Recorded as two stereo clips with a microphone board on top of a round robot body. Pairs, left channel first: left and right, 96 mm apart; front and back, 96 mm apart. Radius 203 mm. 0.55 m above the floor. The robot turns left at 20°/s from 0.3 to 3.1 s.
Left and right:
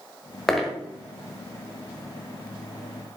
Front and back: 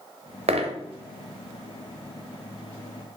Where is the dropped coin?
Straight behind, 1.0 m; by 0.8 s 170° left, 1.0 m.